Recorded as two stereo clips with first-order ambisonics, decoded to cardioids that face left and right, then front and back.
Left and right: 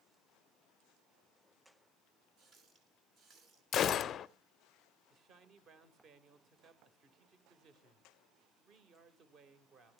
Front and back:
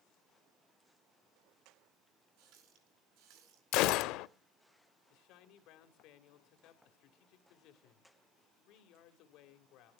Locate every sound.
2.4 s a running tap: 150° right, 5 m
3.7 s a gunshot: 30° left, 0.6 m
5.1 s a man speaking: 35° right, 2 m